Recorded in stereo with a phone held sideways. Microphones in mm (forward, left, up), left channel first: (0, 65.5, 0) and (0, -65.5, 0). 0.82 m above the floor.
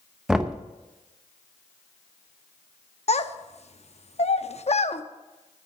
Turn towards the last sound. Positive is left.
turn(degrees=55)  # may be behind; listen again after turning